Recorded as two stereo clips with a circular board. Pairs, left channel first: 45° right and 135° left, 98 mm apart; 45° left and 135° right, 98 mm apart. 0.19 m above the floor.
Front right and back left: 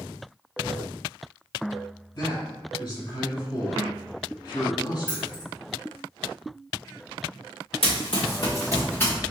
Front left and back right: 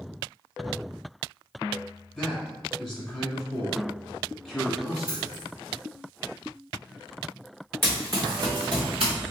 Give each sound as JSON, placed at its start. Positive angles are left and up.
{"t": 2.1, "sound": "a man speaking", "azimuth_deg": -50, "distance_m": 1.3}
{"t": 5.1, "sound": "keys jangling", "azimuth_deg": -145, "distance_m": 2.0}
{"t": 7.8, "sound": "running footsteps", "azimuth_deg": -70, "distance_m": 0.9}